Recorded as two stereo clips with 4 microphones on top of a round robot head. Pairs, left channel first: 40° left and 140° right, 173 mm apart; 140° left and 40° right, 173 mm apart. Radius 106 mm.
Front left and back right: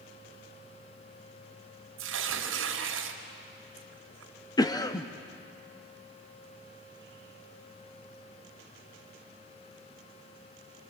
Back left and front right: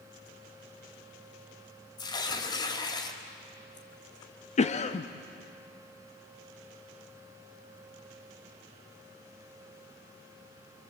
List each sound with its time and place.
2.0 s tearing paper: 150° right, 1.9 m
4.6 s a cough: 100° left, 0.9 m